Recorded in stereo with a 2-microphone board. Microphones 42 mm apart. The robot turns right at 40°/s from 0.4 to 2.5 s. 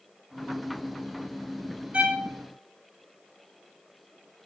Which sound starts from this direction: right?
A violin, at 1.9 s.